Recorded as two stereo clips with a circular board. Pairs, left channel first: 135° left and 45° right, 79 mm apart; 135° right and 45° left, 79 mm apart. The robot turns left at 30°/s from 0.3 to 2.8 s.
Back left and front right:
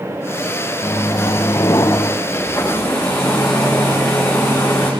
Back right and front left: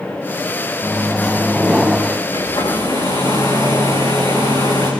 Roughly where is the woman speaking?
I don't hear a woman speaking.